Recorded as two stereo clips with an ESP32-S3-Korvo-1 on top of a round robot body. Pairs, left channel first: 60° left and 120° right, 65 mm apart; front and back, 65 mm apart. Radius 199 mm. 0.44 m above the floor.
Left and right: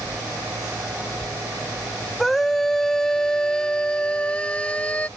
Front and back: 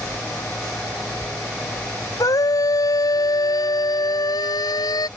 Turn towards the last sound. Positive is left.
turn(degrees=-10)